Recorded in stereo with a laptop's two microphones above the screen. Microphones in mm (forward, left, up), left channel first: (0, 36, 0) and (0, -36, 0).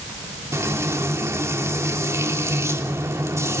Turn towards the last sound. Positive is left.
turn(degrees=-40)  # may be behind; listen again after turning